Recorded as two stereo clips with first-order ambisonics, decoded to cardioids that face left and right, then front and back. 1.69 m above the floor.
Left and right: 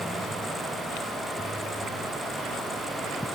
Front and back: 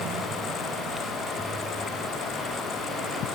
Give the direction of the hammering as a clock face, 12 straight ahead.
I don't hear hammering.